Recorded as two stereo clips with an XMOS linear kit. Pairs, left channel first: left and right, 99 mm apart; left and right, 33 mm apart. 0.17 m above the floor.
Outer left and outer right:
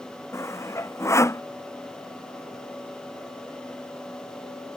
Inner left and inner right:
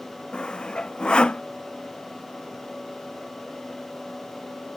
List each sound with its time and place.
0.3 s sawing: 30° left (ahead or behind)